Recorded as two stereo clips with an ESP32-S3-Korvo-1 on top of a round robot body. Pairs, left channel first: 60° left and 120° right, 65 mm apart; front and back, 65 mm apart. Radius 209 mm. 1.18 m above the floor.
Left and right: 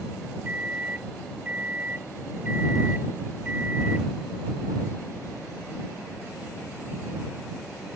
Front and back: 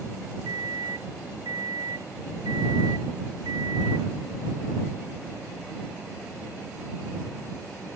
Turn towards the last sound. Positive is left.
turn(degrees=170)